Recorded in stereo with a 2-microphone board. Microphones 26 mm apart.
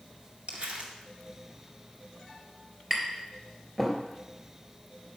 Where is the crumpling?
60° right (ahead or behind), 2.0 m.